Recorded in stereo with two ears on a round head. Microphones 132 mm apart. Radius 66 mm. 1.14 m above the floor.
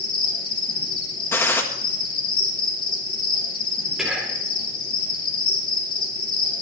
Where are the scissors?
No scissors in this recording.